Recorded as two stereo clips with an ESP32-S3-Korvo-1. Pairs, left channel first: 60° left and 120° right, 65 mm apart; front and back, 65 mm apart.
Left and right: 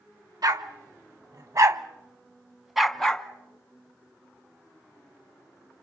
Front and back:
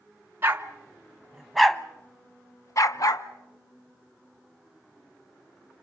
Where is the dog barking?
125° right, 1.5 m; by 3.3 s 20° right, 1.3 m.